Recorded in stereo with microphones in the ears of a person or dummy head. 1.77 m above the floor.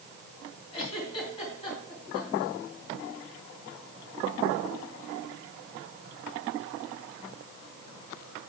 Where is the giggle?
35° left (ahead or behind), 4 m.